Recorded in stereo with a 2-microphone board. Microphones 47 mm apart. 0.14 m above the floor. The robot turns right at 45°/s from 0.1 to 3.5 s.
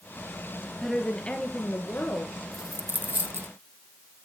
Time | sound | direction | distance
0.8 | a woman speaking | 5° left | 2 m
2.5 | a dropped coin | 20° right (ahead or behind) | 0.9 m